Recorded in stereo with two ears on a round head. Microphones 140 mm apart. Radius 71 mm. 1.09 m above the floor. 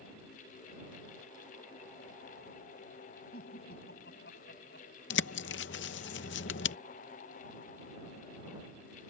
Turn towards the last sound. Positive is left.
turn(degrees=85)